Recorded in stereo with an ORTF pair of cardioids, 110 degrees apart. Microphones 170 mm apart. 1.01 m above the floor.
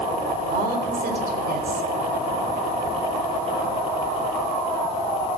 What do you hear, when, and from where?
0.5 s a woman speaking: 65° right, 4 m